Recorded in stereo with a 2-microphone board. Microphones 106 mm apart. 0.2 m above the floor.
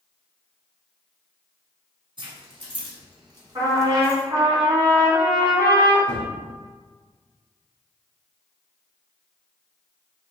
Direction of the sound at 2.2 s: 50° right (ahead or behind).